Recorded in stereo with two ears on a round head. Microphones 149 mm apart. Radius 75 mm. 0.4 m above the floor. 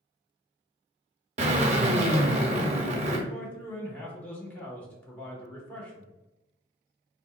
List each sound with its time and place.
1.4 s a drill: 40° right (ahead or behind), 0.6 m
3.3 s a man speaking: 10° left (ahead or behind), 0.9 m